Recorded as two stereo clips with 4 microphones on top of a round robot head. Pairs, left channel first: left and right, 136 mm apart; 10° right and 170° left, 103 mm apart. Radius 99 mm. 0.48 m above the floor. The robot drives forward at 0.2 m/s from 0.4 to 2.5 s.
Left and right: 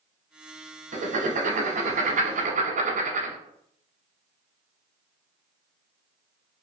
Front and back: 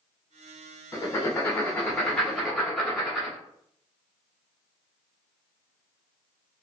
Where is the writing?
75° right, 0.9 m; by 3.4 s 100° right, 0.9 m.